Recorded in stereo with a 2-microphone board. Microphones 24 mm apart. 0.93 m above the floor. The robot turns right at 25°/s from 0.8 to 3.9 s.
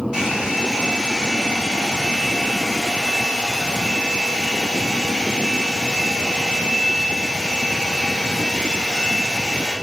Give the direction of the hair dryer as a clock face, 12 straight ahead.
1 o'clock.